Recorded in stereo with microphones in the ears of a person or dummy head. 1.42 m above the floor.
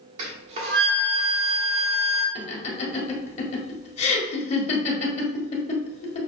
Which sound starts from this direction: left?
Laughter, at 2.4 s.